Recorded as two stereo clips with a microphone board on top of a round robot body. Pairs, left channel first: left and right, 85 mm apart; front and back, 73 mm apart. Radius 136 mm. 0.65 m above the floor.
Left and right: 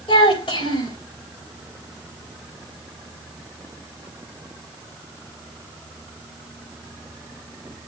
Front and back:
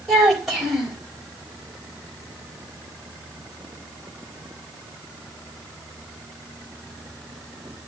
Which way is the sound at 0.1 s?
95° left.